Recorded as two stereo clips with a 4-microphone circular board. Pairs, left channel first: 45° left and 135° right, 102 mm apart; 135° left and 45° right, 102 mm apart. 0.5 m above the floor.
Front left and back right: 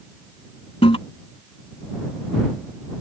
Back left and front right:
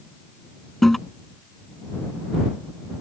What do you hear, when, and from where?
0.8 s a toilet flushing: 50° left